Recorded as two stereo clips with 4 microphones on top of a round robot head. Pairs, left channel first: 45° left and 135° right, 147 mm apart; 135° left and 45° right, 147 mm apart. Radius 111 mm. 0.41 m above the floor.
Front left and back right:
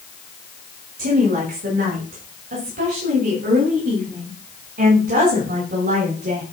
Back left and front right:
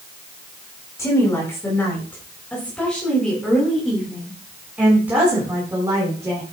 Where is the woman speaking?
155° right, 6 m; by 6.4 s 115° right, 5.5 m.